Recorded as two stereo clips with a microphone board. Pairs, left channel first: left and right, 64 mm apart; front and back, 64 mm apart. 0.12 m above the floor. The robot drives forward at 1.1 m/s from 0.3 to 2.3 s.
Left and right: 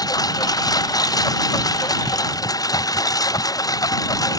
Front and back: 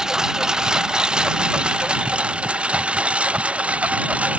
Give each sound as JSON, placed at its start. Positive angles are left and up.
{"t": 0.0, "sound": "a lawn mower", "azimuth_deg": 100}